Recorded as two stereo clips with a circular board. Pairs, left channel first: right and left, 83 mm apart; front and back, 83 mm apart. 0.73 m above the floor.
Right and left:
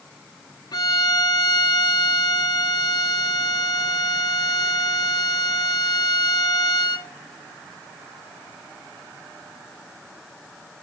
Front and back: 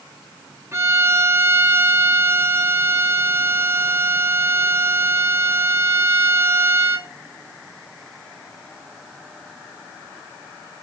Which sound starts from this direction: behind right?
A violin, at 0.7 s.